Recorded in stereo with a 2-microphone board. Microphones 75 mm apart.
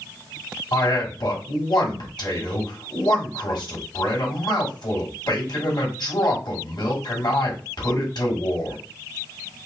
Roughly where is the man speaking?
Left.